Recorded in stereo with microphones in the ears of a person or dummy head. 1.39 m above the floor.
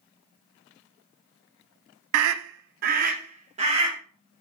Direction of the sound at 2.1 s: 80° right.